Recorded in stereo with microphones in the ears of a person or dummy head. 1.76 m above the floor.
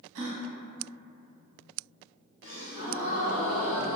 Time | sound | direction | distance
0.1 | a gasp | 70° right (ahead or behind) | 0.9 m
2.4 | a gasp | 40° left (ahead or behind) | 1.6 m